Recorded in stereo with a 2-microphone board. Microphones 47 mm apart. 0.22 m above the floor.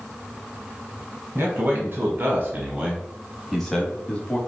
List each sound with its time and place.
1.4 s a man speaking: 50° right (ahead or behind), 1.5 m; by 4.4 s 25° left (ahead or behind), 1.2 m